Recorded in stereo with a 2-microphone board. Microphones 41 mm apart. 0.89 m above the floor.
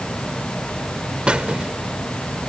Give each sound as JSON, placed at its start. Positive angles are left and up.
{"t": 1.3, "sound": "a squeak", "side_deg": -25}